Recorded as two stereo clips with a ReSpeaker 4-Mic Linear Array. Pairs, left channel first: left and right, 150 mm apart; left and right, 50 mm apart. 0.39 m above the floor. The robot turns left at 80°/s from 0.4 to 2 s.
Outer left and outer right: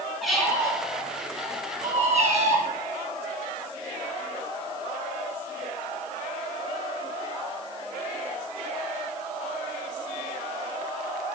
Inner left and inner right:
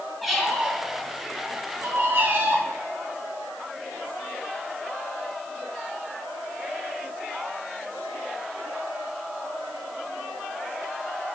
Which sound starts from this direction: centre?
A squeak, at 0.2 s.